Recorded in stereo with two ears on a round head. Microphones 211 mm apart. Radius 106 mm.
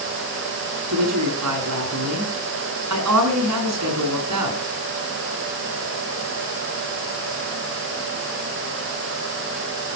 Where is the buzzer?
I don't hear a buzzer.